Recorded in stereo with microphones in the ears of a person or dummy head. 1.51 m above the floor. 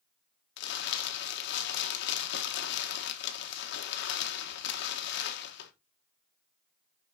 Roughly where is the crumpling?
Left.